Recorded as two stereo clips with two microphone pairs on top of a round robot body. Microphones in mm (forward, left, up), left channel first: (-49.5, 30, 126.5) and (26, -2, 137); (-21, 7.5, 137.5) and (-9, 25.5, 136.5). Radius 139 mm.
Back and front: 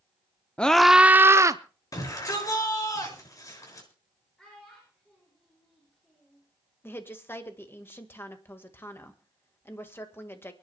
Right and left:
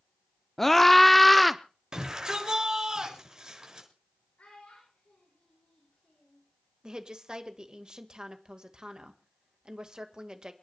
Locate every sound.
0.6 s a scream: 175° left, 0.9 m; by 1.6 s 30° right, 1.1 m
1.9 s a shout: 115° left, 7 m
4.4 s a child speaking: 125° right, 7.5 m
6.8 s a woman speaking: 105° left, 2.0 m